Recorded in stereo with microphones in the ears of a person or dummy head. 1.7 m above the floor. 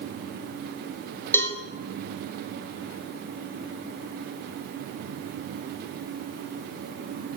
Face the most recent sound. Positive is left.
turn(degrees=10)  # may be behind; listen again after turning